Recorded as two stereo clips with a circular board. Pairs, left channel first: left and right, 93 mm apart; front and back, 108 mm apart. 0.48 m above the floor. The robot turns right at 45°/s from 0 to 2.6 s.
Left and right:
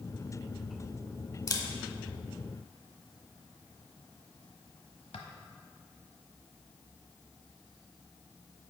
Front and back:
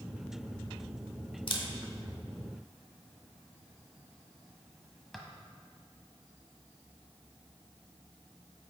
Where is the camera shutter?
40° left, 0.9 m; by 5.2 s 90° left, 0.9 m.